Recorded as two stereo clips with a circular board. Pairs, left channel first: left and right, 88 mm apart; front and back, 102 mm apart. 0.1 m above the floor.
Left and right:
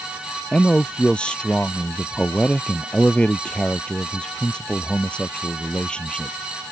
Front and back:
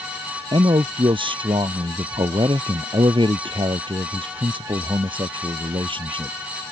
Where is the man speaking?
165° left.